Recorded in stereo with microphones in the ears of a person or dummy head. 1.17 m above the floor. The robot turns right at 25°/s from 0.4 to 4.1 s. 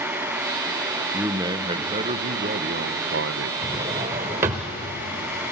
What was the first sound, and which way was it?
A man speaking, 170° right.